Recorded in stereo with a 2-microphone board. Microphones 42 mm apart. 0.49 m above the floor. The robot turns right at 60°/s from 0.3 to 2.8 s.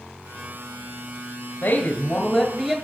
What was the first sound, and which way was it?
A woman speaking, 100° left.